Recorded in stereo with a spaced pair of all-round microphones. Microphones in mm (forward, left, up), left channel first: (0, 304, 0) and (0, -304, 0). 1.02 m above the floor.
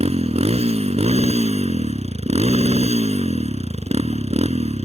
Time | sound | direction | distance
0.0 | a motorcycle | 10° right (ahead or behind) | ?